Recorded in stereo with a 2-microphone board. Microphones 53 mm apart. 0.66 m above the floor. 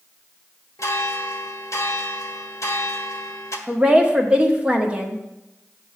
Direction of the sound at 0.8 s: 65° left (ahead or behind).